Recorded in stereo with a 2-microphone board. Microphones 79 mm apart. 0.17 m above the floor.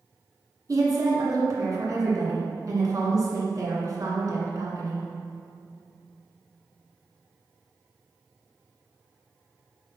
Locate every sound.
0.7 s a woman speaking: 45° right (ahead or behind), 2.0 m